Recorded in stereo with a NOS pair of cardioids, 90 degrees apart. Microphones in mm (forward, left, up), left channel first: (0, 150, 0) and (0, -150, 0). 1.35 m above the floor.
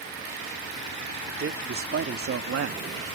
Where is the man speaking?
45° right; by 3.0 s 60° right.